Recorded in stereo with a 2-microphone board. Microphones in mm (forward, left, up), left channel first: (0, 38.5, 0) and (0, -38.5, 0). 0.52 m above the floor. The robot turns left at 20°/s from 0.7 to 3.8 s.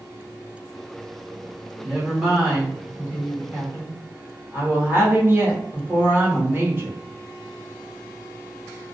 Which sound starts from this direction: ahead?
A woman speaking, at 1.8 s.